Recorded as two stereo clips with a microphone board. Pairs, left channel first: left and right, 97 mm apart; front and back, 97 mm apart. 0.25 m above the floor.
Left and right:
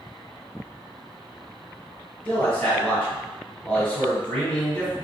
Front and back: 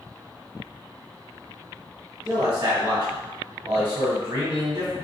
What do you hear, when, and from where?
2.2 s a man speaking: 160° left, 1.3 m